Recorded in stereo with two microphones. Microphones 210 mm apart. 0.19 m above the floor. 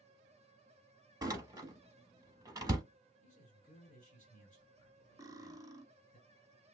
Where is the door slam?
20° right (ahead or behind), 0.7 m.